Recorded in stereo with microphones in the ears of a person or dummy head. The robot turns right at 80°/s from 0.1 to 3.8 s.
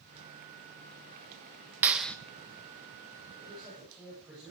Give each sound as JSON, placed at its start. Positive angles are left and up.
{"t": 1.8, "sound": "a clap", "side_deg": -15, "distance_m": 1.1}
{"t": 3.4, "sound": "a man speaking", "azimuth_deg": -45, "distance_m": 9.5}